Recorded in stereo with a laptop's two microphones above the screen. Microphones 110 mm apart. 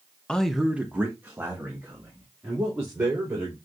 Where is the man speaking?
10° left (ahead or behind), 0.7 m; by 3.5 s 25° right (ahead or behind), 4 m.